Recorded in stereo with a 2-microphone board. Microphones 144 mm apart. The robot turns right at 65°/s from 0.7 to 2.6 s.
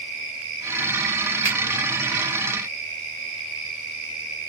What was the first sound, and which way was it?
A finger snap, 35° left (ahead or behind).